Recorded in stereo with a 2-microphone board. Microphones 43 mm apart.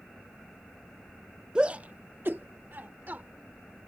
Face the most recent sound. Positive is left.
turn(degrees=-45)  # may be behind; listen again after turning